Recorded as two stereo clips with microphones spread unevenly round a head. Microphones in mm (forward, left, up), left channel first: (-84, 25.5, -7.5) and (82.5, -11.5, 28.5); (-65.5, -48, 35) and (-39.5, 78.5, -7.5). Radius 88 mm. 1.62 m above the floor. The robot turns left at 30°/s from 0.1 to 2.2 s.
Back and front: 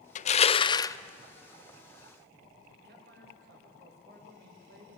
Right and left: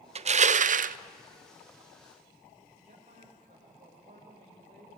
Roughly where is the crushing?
Behind left.